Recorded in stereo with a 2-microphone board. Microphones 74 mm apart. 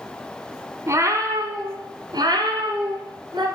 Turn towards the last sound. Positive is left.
turn(degrees=-85)